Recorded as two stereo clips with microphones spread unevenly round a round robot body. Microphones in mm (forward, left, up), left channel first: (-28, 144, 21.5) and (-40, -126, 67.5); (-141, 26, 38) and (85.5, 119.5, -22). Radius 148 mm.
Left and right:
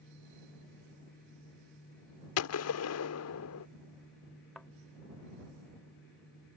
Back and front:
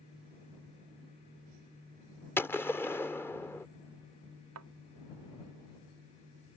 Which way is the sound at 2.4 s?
120° left.